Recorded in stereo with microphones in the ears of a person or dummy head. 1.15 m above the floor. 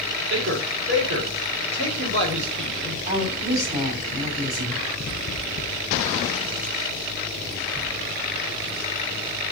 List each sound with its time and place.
0.3 s a man speaking: 65° right (ahead or behind), 3 m
3.1 s a woman speaking: 35° right (ahead or behind), 3 m